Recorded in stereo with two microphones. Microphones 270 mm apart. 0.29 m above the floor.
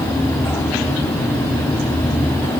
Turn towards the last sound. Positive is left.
No sound to turn to.